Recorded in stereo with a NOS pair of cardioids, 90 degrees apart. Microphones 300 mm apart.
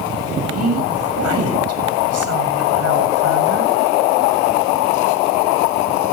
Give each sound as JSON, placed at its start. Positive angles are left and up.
{"t": 0.5, "sound": "a woman speaking", "azimuth_deg": -55, "distance_m": 7.5}